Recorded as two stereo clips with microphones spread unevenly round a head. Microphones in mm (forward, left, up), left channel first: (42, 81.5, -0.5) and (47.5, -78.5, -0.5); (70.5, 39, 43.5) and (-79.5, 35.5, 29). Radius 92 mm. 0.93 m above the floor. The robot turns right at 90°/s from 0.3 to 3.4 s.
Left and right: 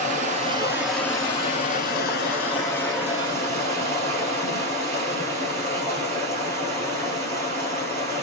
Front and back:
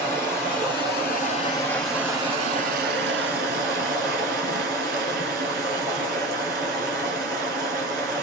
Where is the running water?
55° right, 1.5 m; by 8.2 s 135° right, 1.5 m.